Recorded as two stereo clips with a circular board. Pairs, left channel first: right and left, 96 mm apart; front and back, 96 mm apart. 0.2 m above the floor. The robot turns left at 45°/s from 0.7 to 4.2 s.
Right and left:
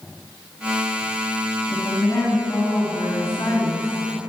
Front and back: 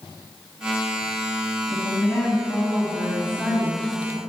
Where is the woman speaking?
40° right, 2.5 m; by 4.3 s 155° right, 2.5 m.